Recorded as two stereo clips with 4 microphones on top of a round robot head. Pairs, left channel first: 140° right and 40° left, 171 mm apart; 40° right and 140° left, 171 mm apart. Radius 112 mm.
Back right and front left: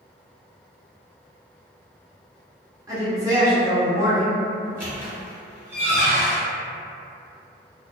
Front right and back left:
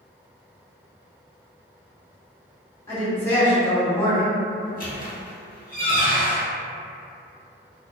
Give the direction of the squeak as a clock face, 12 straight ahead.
1 o'clock.